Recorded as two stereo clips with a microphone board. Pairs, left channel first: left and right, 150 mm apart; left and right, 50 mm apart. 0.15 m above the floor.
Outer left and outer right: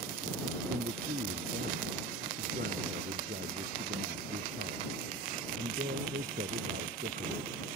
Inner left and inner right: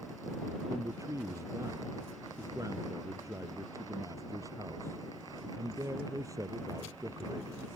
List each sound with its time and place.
0.7 s a man speaking: 85° right